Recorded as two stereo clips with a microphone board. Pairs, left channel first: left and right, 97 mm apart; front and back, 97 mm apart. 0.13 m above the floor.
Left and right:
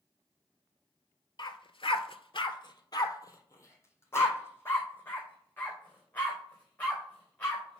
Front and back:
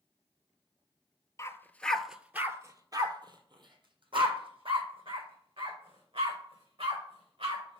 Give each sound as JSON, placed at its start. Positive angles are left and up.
{"t": 1.4, "sound": "a dog barking", "azimuth_deg": 55, "distance_m": 0.7}